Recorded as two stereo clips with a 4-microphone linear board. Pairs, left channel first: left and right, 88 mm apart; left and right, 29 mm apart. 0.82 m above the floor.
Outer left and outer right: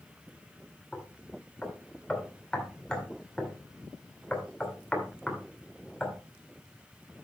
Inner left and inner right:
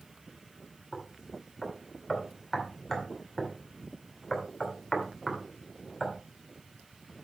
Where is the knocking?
10° left (ahead or behind), 2.5 m.